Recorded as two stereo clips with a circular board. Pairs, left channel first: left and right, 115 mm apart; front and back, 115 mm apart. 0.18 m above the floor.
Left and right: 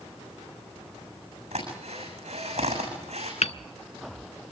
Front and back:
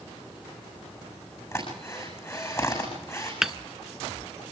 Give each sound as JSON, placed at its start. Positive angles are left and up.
{"t": 1.5, "sound": "a drill", "azimuth_deg": -65, "distance_m": 7.0}
{"t": 3.4, "sound": "hammering", "azimuth_deg": 95, "distance_m": 0.5}